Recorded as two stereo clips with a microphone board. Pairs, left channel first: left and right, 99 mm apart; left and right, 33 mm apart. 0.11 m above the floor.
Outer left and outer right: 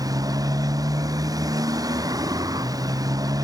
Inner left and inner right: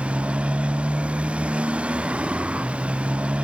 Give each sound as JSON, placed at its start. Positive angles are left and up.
{"t": 0.0, "sound": "a motorcycle", "side_deg": -35}